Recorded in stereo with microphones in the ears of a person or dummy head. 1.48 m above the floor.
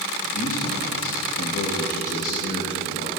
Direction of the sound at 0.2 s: 55° left (ahead or behind).